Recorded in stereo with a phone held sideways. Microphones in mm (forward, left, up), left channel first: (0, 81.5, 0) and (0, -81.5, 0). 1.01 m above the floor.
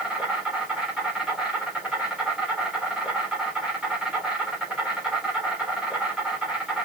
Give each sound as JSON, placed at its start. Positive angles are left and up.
{"t": 0.0, "sound": "an insect", "side_deg": -5, "distance_m": 4.0}